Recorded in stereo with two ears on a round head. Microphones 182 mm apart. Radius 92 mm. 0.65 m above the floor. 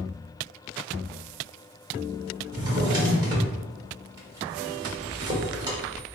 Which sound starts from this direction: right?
A drawer, at 2.5 s.